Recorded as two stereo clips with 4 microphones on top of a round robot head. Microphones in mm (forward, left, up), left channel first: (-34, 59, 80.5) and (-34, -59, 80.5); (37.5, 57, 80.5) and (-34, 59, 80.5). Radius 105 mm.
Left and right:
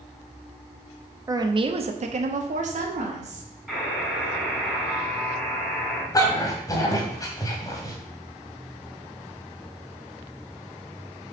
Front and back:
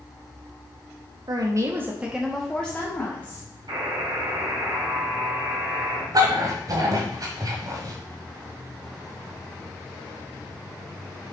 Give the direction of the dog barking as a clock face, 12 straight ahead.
7 o'clock.